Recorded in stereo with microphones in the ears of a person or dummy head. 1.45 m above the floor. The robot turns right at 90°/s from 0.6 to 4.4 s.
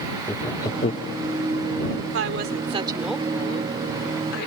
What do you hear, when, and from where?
0.3 s laughter: 20° left (ahead or behind); by 1.1 s 70° left (ahead or behind)
2.1 s a woman speaking: 90° right; by 4.5 s 115° left